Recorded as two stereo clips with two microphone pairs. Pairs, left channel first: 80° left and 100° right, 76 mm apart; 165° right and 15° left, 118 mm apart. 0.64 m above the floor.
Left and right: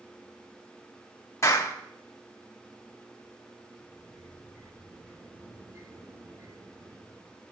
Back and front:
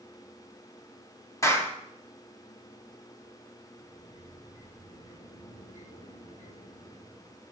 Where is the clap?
130° left, 3.5 m.